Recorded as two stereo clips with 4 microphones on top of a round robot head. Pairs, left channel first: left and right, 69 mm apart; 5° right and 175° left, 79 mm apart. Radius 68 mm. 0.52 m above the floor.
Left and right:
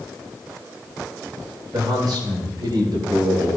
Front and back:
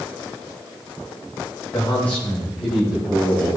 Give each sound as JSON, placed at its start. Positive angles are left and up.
{"t": 1.7, "sound": "a man speaking", "azimuth_deg": -65, "distance_m": 2.5}